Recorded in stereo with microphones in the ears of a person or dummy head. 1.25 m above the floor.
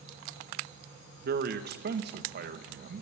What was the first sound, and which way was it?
A man speaking, 55° right (ahead or behind).